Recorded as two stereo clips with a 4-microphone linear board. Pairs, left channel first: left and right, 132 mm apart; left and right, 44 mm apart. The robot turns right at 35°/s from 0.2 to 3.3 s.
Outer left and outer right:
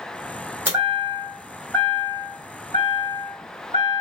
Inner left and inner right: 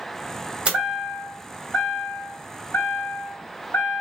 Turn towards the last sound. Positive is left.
turn(degrees=75)